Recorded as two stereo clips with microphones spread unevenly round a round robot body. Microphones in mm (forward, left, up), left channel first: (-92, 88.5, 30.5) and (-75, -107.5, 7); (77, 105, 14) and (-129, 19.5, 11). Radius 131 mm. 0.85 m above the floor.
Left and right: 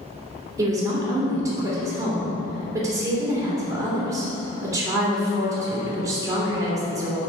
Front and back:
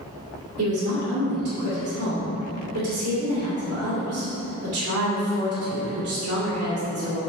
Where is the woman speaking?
160° right, 2.5 m.